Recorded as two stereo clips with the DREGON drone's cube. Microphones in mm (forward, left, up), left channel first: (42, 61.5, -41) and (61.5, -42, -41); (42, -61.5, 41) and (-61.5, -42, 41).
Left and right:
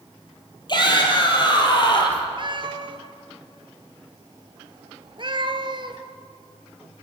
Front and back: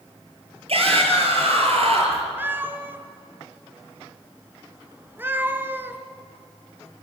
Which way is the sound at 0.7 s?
145° left.